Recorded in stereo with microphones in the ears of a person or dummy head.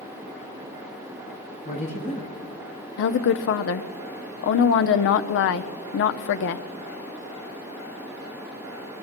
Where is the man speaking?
35° left (ahead or behind), 2.5 m.